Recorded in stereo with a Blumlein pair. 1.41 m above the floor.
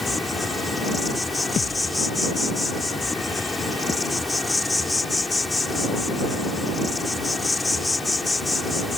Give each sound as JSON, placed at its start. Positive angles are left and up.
{"t": 0.0, "sound": "an insect", "azimuth_deg": 10}
{"t": 1.6, "sound": "a thud", "azimuth_deg": 25}